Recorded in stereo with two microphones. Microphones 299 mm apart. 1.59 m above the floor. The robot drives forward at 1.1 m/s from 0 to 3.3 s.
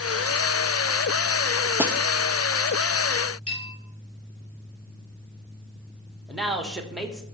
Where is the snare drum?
5° right (ahead or behind), 0.5 m.